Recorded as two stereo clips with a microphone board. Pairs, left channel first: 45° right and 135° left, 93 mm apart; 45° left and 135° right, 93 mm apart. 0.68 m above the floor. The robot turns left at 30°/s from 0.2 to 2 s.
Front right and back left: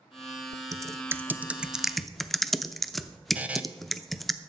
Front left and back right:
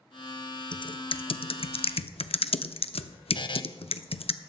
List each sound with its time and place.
0.7 s typing on a keyboard: 80° left, 0.6 m; by 4.3 s 45° left, 0.6 m
3.4 s a buzzer: 60° left, 0.8 m